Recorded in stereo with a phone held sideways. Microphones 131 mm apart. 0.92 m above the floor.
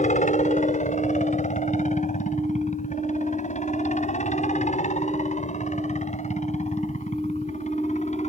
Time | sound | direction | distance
0.0 | a helicopter | 65° left (ahead or behind) | ?